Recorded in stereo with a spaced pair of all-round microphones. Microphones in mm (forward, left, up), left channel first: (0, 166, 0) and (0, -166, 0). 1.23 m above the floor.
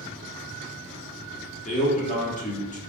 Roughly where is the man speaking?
Left.